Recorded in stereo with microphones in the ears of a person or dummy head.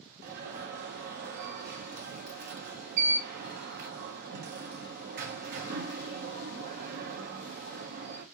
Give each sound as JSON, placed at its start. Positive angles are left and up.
{"t": 0.2, "sound": "an alarm", "side_deg": -55, "distance_m": 0.6}